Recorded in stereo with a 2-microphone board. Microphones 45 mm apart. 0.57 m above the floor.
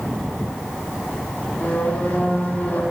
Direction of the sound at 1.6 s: 40° left (ahead or behind).